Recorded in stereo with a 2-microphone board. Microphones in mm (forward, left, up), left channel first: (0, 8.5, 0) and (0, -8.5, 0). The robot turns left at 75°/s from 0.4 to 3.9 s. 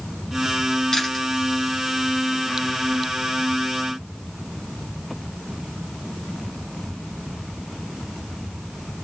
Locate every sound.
0.9 s chewing: 35° left (ahead or behind), 7 m; by 1.2 s 10° left (ahead or behind), 7 m